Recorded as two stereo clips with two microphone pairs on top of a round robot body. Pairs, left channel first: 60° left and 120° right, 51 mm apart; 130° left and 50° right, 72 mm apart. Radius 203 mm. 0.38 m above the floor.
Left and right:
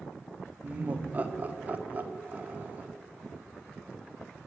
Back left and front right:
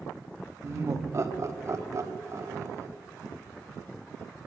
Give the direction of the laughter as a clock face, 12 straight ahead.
2 o'clock.